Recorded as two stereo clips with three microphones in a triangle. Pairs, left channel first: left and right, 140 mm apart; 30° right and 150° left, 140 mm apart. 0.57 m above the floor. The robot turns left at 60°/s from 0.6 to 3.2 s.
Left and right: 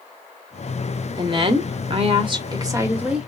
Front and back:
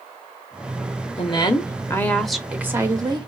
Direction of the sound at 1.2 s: 50° right.